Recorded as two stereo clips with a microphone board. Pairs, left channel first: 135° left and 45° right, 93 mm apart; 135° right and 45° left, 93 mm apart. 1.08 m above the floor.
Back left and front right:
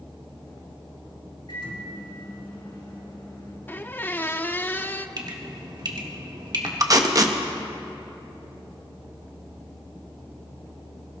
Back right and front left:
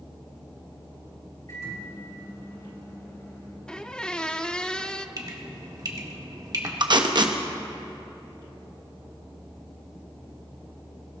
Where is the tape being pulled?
5° left, 1.0 m.